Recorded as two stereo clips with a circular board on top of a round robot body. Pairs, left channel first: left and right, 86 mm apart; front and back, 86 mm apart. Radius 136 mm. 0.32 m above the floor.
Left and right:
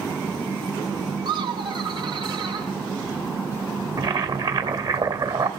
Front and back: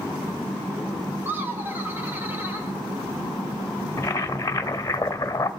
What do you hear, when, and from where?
1.2 s laughter: 115° right, 3.5 m
4.0 s boiling: 60° right, 1.9 m